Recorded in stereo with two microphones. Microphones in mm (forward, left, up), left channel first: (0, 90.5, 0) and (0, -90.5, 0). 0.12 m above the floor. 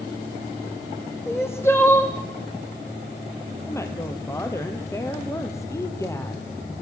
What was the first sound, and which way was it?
Crying, 15° left (ahead or behind).